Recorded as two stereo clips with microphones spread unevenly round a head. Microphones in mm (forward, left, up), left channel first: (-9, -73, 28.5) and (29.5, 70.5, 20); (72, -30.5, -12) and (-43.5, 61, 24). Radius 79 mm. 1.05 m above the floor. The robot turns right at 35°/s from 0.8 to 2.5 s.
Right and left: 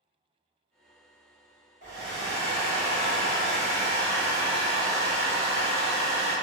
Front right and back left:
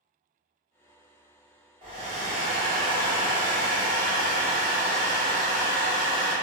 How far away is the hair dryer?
About 1.2 m.